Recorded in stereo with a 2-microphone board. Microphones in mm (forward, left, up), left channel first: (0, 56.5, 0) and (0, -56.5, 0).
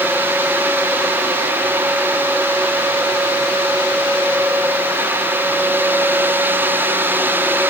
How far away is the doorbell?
I don't hear a doorbell.